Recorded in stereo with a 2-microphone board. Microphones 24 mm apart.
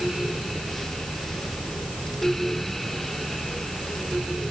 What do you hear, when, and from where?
Only background noise.